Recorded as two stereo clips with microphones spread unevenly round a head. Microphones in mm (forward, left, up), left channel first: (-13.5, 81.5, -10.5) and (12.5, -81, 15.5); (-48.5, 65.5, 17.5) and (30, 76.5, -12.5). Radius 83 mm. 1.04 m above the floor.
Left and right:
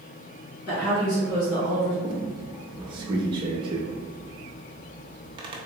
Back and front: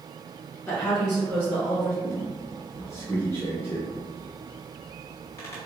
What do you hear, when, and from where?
0.7 s a woman speaking: 115° left, 1.8 m; by 1.9 s 100° left, 1.0 m
2.0 s a squeak: 130° right, 0.6 m